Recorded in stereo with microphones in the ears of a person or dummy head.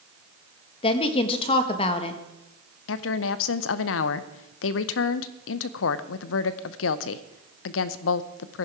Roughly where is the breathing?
No breathing in this recording.